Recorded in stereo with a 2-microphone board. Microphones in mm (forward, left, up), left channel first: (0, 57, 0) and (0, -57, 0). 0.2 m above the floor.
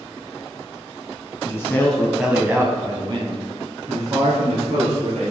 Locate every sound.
1.4 s a man speaking: 25° left (ahead or behind), 1.7 m; by 5.3 s 70° right (ahead or behind), 4 m